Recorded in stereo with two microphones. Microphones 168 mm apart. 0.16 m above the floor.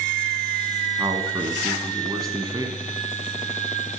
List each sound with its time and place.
1.0 s a man speaking: 25° right (ahead or behind), 1.2 m